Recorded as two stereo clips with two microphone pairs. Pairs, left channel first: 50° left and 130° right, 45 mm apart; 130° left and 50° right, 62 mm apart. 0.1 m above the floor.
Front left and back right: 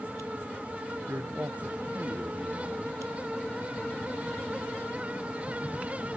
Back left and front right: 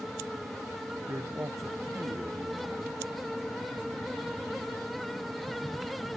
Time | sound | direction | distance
1.1 | a man speaking | 95° right | ?